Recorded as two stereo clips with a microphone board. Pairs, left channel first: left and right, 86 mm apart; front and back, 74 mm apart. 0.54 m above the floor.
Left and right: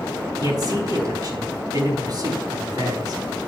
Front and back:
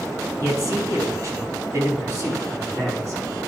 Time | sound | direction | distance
0.4 | a man speaking | 135° right | 5 m